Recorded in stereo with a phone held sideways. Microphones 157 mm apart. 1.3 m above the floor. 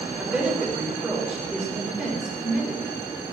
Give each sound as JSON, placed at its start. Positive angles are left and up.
{"t": 0.2, "sound": "a woman speaking", "side_deg": -5, "distance_m": 5.5}